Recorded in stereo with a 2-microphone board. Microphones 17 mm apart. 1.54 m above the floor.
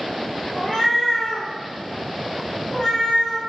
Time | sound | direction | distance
0.5 | a cat meowing | 60° left (ahead or behind) | 1.7 m